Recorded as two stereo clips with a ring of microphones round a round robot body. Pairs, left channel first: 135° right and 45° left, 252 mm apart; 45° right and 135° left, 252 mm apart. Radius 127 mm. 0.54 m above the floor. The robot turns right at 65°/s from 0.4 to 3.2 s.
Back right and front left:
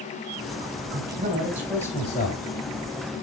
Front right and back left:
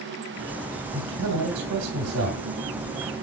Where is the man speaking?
85° left, 2 m; by 2.4 s 175° right, 2 m.